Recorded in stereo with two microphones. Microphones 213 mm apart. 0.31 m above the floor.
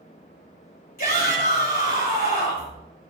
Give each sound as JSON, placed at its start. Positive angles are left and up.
{"t": 1.0, "sound": "a shout", "side_deg": 40, "distance_m": 5.0}